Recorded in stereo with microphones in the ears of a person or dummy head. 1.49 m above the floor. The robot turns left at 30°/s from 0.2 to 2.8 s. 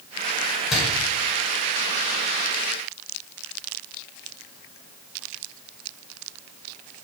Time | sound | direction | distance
0.7 | a door slam | 5° right (ahead or behind) | 5.5 m